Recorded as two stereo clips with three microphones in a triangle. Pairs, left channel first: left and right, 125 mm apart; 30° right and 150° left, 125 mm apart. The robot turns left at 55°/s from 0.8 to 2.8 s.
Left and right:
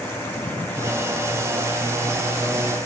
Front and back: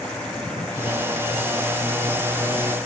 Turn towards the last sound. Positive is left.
No sound to turn to.